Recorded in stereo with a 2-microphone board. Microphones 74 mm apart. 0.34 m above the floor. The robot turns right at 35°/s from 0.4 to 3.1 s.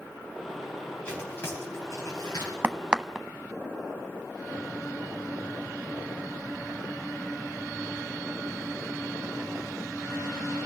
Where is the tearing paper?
15° left (ahead or behind), 8.5 m; by 2.5 s 65° left (ahead or behind), 8.5 m.